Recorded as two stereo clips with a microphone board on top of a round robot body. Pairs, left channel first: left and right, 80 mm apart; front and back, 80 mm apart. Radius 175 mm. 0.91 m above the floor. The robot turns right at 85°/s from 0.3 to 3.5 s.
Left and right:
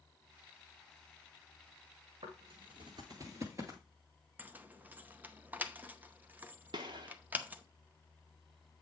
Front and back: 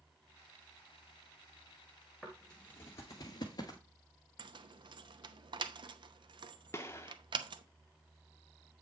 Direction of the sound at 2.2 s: 90° right.